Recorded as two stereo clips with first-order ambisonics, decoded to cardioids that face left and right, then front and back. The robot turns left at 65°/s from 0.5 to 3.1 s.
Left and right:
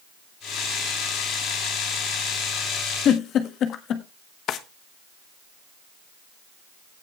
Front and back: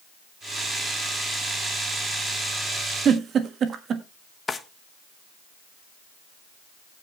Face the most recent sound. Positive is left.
turn(degrees=70)